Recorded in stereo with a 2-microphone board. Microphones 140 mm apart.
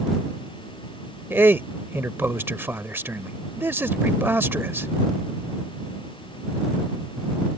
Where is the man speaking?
15° right (ahead or behind).